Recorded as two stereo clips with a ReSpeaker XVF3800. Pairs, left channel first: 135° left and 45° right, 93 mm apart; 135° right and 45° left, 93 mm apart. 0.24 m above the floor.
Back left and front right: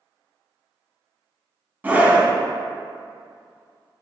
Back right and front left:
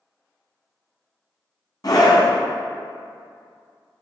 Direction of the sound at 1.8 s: 110° right.